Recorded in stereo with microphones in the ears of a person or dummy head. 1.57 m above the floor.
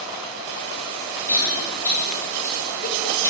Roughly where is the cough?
Centre.